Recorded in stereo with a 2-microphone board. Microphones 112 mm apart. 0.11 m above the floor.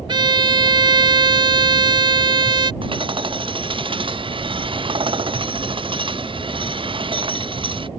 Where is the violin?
45° right (ahead or behind).